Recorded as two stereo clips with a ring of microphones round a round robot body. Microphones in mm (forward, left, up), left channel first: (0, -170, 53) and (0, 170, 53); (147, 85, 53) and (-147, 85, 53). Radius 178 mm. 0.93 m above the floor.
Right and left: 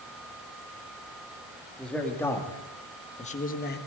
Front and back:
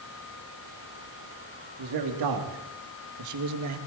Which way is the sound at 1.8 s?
175° right.